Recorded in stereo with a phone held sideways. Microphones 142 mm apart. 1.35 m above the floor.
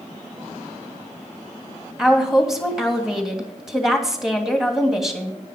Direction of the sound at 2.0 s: 5° right (ahead or behind).